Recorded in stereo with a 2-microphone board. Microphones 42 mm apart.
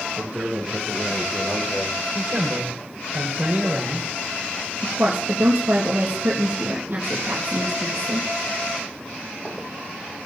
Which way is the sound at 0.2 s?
45° right (ahead or behind).